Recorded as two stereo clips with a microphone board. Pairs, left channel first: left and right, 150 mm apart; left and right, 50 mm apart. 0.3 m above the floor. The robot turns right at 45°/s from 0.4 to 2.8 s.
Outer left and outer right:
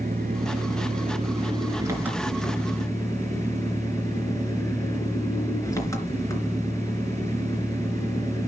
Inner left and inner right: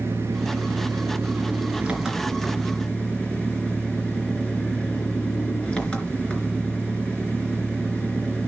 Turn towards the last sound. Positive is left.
turn(degrees=20)